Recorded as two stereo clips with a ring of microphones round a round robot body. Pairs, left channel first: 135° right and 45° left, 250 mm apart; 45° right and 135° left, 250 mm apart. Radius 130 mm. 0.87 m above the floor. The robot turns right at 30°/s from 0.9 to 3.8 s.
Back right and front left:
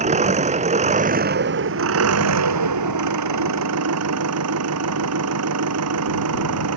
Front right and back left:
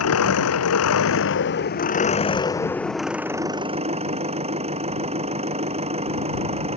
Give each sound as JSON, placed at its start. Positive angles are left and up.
{"t": 0.0, "sound": "an engine running", "azimuth_deg": -20}